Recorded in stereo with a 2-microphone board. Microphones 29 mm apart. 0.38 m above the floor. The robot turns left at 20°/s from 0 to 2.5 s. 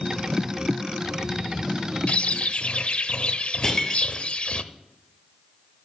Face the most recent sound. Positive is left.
turn(degrees=20)  # may be behind; listen again after turning